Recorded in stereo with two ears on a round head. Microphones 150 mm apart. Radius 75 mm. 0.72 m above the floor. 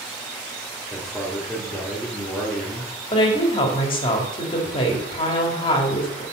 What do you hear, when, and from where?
0.9 s a man speaking: centre (ahead or behind), 1.7 m
3.1 s a woman speaking: 30° left (ahead or behind), 1.4 m